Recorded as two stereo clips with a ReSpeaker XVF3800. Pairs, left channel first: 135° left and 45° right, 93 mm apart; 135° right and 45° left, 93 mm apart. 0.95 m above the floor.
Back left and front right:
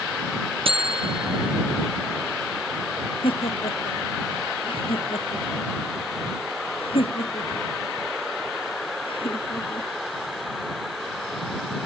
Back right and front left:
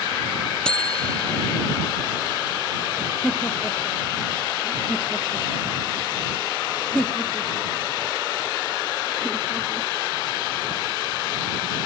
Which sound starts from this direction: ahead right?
A buzzer, at 0.7 s.